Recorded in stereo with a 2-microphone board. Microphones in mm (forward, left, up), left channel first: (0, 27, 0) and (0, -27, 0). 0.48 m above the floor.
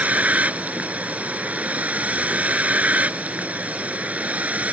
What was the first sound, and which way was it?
A vehicle, 30° right (ahead or behind).